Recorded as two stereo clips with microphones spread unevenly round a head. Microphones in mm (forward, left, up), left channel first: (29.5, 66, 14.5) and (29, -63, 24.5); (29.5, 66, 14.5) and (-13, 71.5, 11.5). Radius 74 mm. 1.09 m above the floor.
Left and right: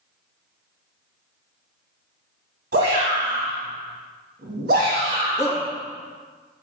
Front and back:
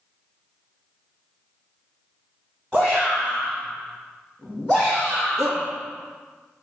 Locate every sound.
2.7 s a shout: 115° right, 1.6 m
5.4 s a shout: 165° left, 2.0 m